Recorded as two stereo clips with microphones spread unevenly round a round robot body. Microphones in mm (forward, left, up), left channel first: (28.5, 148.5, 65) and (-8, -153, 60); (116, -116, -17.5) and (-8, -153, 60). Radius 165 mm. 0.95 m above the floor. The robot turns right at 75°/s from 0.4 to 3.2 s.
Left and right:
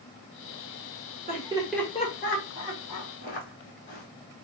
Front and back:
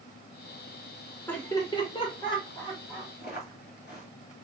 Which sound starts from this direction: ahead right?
Laughter, at 1.3 s.